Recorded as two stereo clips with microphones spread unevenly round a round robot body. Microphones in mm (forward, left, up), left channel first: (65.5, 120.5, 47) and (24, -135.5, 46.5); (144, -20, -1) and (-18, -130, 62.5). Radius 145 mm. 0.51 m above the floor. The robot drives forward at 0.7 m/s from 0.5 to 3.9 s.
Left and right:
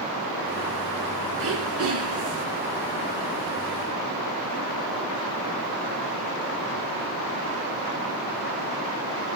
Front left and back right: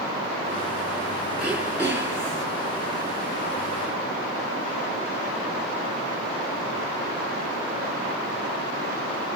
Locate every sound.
1.4 s throat clearing: 60° right, 5.5 m; by 2.5 s 70° right, 5 m